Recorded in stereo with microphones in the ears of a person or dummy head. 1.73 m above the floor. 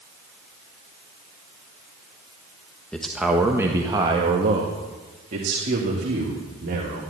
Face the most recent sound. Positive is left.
turn(degrees=-55)  # may be behind; listen again after turning